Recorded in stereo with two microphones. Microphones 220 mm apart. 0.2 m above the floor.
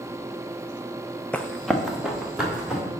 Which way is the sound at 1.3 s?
5° left (ahead or behind).